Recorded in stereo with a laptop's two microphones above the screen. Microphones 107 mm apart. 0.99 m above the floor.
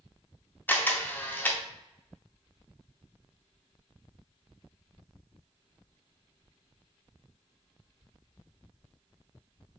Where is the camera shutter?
15° left (ahead or behind), 0.6 m.